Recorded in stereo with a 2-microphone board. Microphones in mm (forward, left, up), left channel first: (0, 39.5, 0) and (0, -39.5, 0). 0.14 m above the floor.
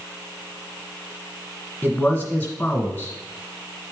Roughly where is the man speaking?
Centre.